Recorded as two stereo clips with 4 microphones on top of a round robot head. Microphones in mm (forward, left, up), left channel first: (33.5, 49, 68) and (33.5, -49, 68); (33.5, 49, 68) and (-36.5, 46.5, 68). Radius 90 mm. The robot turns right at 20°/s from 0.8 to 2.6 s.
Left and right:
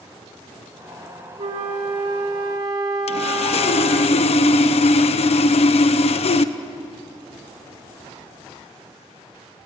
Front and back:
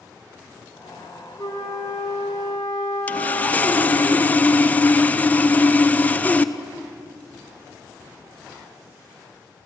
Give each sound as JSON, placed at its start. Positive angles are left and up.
{"t": 1.4, "sound": "a flute", "azimuth_deg": -65, "distance_m": 1.3}
{"t": 3.1, "sound": "sawing", "azimuth_deg": 70, "distance_m": 0.8}